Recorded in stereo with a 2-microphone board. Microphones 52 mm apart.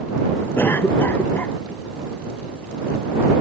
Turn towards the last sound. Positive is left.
turn(degrees=45)  # may be behind; listen again after turning